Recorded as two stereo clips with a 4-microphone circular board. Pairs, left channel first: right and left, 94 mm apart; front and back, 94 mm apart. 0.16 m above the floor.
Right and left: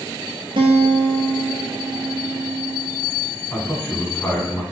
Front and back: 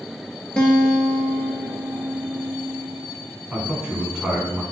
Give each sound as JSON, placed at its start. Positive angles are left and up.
{"t": 0.6, "sound": "a guitar", "azimuth_deg": 80, "distance_m": 0.6}
{"t": 3.5, "sound": "a man speaking", "azimuth_deg": -115, "distance_m": 1.1}